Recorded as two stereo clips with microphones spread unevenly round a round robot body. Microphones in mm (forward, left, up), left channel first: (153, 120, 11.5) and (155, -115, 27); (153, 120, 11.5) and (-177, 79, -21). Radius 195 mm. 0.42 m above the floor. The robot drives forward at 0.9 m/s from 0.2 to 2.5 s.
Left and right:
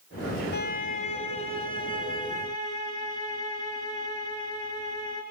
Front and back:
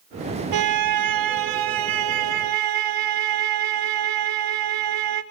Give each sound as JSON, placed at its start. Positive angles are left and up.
{"t": 0.5, "sound": "a violin", "azimuth_deg": 155, "distance_m": 1.0}